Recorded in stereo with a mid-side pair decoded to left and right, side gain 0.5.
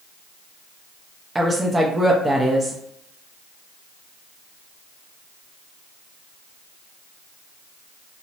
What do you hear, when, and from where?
1.4 s a woman speaking: 15° right, 0.5 m